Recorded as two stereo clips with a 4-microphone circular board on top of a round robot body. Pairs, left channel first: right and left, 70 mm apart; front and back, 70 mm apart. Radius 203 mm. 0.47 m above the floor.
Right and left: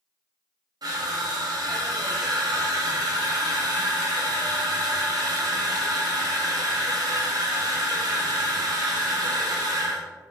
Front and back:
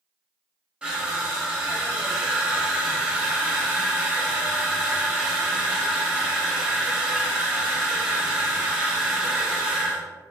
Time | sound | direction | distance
0.8 | crushing | 105° left | 0.7 m